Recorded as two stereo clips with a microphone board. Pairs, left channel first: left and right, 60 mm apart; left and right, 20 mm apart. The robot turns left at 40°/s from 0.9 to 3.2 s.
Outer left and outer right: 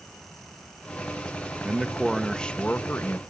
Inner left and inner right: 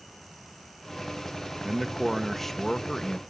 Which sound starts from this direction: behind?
A man speaking, at 1.6 s.